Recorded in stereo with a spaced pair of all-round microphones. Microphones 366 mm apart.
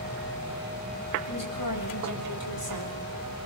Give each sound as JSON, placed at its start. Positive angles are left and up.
{"t": 1.3, "sound": "a woman speaking", "side_deg": 70, "distance_m": 7.0}